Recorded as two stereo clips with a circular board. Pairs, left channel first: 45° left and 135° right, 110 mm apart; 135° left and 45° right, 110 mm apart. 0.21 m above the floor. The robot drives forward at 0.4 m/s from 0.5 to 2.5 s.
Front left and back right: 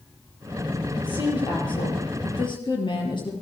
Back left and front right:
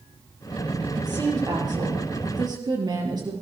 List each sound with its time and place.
0.9 s a woman speaking: 5° left, 5 m